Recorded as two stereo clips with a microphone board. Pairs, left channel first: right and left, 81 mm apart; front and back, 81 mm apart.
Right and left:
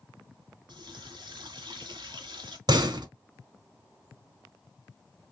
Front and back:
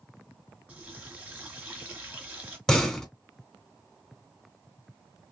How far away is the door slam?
About 1.0 m.